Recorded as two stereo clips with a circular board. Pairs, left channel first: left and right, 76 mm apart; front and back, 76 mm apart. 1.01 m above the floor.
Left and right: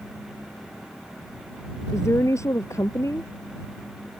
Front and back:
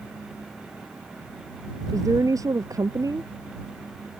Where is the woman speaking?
140° left.